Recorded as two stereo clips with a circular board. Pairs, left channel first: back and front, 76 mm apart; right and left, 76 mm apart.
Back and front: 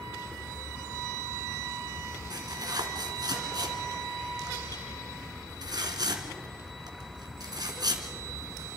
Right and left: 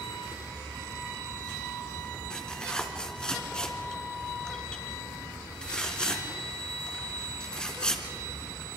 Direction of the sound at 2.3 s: 15° right.